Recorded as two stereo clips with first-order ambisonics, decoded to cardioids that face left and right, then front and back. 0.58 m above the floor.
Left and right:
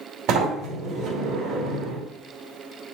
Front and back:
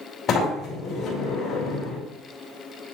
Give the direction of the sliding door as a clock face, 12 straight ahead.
2 o'clock.